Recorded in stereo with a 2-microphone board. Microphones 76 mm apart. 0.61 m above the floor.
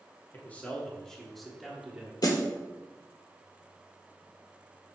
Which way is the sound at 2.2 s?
55° left (ahead or behind).